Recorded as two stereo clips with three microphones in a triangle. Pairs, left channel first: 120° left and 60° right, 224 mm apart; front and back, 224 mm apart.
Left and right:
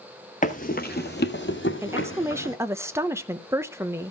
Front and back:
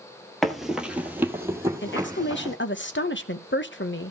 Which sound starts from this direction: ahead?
A woman speaking, at 1.8 s.